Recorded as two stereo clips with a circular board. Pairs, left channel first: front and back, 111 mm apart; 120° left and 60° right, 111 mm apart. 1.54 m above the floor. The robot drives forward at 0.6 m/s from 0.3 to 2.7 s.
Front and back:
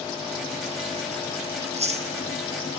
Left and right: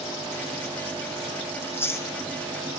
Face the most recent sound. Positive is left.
turn(degrees=-175)